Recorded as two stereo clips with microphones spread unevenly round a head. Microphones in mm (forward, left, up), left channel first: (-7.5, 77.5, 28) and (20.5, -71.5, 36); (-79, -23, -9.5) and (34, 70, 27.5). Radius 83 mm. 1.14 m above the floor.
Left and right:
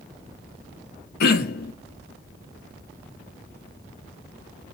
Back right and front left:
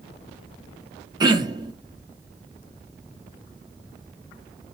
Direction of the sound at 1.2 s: 105° left.